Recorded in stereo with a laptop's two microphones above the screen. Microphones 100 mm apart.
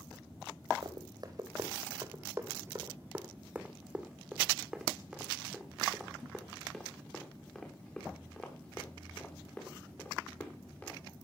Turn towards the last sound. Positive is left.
turn(degrees=20)  # may be behind; listen again after turning